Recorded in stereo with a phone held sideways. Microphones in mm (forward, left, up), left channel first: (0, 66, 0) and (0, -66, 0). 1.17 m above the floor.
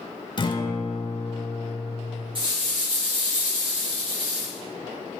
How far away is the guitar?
About 0.6 m.